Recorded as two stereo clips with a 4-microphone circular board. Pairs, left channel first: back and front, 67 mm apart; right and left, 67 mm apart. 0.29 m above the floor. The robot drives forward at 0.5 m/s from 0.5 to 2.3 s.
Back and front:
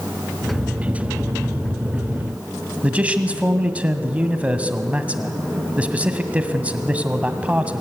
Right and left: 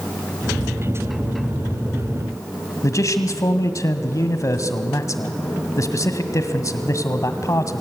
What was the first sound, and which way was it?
A man speaking, 65° right.